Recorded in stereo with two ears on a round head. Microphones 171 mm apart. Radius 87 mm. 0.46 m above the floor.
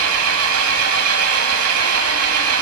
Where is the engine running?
75° right (ahead or behind), 1.2 m.